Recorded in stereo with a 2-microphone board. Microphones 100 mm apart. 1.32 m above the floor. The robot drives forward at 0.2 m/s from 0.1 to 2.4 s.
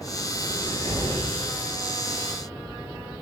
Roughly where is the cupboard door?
Right.